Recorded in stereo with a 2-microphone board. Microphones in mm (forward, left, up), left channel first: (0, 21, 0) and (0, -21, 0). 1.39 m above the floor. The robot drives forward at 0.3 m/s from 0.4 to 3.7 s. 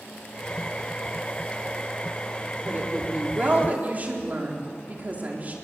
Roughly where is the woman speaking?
Right.